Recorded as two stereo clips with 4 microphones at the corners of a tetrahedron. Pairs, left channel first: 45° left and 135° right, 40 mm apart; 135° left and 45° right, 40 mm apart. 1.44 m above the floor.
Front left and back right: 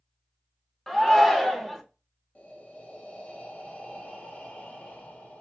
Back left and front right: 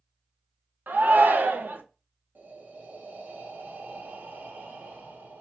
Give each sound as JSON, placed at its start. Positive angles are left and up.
{"t": 0.9, "sound": "a shout", "azimuth_deg": -40, "distance_m": 0.6}
{"t": 2.4, "sound": "breathing", "azimuth_deg": -10, "distance_m": 0.7}